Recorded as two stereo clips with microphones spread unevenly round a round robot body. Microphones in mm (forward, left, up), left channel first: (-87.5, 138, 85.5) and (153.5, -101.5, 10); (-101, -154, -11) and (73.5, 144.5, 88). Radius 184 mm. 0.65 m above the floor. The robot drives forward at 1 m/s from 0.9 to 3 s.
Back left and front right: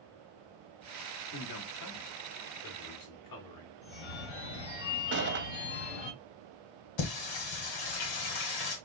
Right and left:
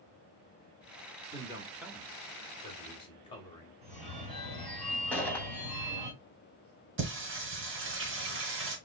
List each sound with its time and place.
1.3 s a man speaking: 150° left, 1.3 m; by 3.7 s 170° left, 2.5 m
3.8 s a phone ringing: 130° left, 3.5 m
5.1 s a gunshot: 55° right, 1.1 m
7.0 s singing: 115° left, 1.5 m